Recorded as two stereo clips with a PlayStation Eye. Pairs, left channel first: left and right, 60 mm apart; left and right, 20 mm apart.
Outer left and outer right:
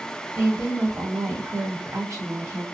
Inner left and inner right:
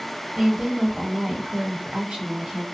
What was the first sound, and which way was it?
A woman speaking, 60° right (ahead or behind).